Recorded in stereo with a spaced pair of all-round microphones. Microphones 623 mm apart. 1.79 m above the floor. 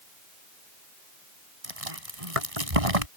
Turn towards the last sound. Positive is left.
turn(degrees=-65)  # may be behind; listen again after turning